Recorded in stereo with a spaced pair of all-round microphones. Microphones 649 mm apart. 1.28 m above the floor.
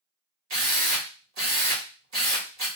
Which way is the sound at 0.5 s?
70° right (ahead or behind).